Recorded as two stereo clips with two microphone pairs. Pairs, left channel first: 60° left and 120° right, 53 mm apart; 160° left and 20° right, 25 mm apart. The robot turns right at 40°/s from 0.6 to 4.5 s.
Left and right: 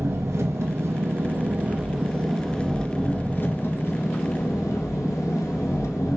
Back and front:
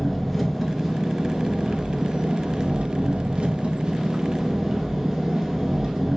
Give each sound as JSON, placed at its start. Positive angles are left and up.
{"t": 0.0, "sound": "an engine running", "azimuth_deg": -105, "distance_m": 1.2}